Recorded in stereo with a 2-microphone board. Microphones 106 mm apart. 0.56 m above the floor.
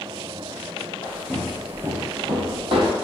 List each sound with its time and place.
1.0 s footsteps: 25° left (ahead or behind), 0.8 m; by 3.0 s 60° right (ahead or behind), 1.1 m